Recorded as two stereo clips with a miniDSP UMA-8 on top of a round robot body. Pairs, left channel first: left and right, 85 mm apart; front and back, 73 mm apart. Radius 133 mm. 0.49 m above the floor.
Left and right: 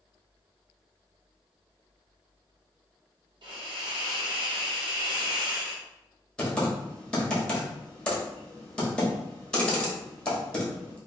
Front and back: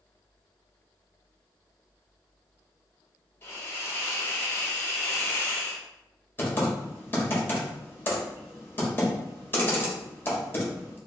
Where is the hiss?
60° right, 0.9 m.